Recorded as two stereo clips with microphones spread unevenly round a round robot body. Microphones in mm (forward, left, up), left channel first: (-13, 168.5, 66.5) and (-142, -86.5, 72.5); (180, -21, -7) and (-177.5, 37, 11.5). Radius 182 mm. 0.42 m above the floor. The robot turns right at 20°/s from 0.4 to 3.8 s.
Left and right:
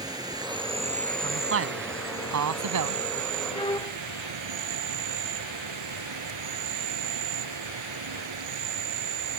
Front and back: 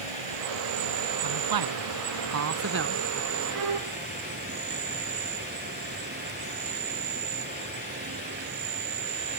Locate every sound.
0.0 s an insect: 165° left; by 9.4 s 125° right
1.2 s a man speaking: 165° right; by 3.1 s 125° right
3.5 s a violin: 135° left; by 4.0 s 140° left